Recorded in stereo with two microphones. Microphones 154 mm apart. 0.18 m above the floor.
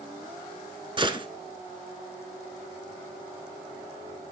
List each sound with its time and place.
1.0 s a gunshot: 35° right (ahead or behind), 0.7 m